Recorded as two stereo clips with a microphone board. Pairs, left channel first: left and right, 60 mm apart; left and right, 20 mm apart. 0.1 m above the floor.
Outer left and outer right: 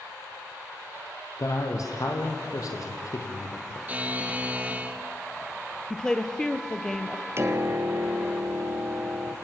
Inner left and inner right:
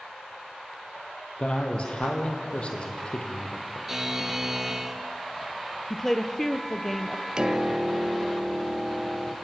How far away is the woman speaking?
About 1.8 m.